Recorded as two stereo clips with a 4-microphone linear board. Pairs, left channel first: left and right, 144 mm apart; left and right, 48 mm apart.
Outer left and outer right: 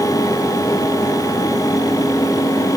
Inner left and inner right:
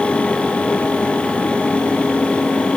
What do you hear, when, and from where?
Only background noise.